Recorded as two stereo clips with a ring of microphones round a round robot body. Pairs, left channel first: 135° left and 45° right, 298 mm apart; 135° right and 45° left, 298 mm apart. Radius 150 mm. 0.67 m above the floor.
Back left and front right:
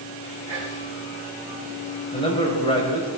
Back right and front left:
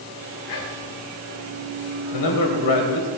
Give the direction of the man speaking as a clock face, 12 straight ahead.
5 o'clock.